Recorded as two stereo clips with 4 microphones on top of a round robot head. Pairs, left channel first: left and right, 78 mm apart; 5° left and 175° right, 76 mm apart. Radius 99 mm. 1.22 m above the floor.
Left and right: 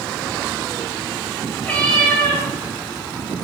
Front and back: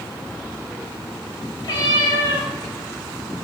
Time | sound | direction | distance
1.6 | a cat meowing | 15° left | 3 m